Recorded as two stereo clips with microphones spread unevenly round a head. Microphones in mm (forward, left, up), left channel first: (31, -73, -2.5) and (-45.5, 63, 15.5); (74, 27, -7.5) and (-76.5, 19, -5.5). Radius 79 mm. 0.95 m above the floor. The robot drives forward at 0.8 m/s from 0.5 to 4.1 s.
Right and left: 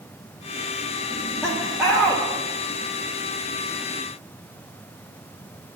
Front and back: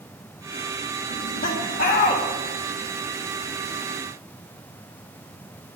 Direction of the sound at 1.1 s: 25° left.